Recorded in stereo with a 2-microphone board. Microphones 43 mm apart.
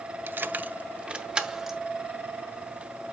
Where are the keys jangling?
55° right (ahead or behind), 0.5 m; by 1.8 s 10° right (ahead or behind), 1.1 m.